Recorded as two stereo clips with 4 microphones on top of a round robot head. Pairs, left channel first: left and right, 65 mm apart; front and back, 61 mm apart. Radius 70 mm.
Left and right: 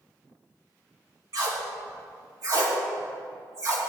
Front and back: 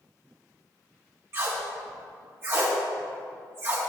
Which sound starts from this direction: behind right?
Tape being pulled, at 1.3 s.